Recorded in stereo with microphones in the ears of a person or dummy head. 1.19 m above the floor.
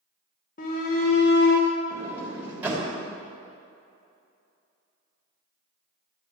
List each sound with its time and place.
0.6 s a shout: 45° left (ahead or behind), 1.5 m; by 1.7 s 55° left (ahead or behind), 1.2 m
1.9 s a sliding door: 10° right (ahead or behind), 3.5 m